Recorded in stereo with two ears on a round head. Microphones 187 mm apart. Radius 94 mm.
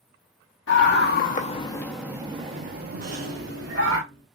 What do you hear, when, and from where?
0.7 s a scream: 60° left (ahead or behind), 1.0 m; by 4.0 s 60° right (ahead or behind), 1.7 m
3.0 s a rattle: 50° right (ahead or behind), 1.5 m